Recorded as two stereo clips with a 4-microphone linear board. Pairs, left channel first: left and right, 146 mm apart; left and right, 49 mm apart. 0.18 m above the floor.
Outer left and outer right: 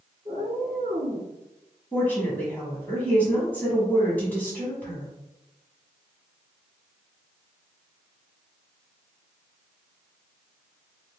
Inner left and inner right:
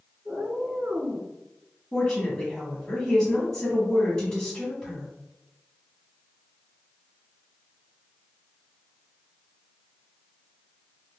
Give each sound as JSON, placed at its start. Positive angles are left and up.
{"t": 0.2, "sound": "a cat meowing", "side_deg": -30, "distance_m": 1.2}
{"t": 1.9, "sound": "a woman speaking", "side_deg": 10, "distance_m": 1.2}